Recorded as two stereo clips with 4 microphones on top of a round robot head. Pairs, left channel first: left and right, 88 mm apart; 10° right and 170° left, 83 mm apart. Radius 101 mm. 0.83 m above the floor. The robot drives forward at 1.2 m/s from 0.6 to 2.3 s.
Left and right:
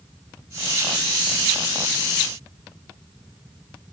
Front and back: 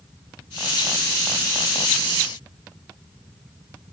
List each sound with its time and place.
Only background noise.